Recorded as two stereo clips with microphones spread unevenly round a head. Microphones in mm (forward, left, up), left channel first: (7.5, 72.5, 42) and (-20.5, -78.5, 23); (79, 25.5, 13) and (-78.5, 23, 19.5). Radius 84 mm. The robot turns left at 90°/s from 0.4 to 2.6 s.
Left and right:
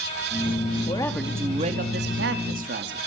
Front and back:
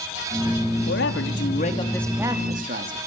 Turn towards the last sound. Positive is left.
turn(degrees=-135)